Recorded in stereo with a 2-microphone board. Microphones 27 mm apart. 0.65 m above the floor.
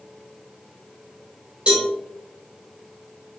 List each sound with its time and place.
1.7 s a cowbell: 45° right (ahead or behind), 2 m